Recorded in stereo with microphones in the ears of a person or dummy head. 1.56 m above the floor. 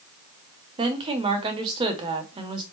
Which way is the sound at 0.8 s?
30° right (ahead or behind).